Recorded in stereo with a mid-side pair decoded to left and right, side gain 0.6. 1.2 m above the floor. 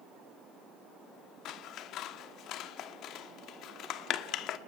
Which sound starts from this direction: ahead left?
Scissors, at 1.4 s.